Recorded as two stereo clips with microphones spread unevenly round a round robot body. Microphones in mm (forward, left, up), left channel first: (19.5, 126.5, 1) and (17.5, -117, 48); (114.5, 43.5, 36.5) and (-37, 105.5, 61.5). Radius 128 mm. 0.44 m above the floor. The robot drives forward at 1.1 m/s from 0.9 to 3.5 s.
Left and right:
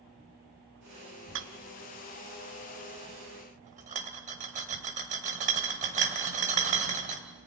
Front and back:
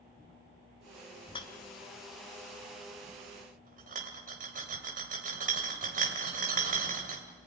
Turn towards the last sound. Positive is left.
turn(degrees=-155)